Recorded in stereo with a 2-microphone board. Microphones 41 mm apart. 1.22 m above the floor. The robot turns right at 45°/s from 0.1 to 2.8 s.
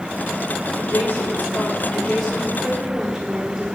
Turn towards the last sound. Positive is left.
turn(degrees=-165)